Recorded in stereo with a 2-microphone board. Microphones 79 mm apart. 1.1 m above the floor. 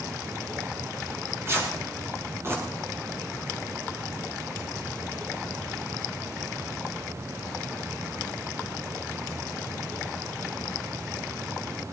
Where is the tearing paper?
35° right (ahead or behind), 6 m.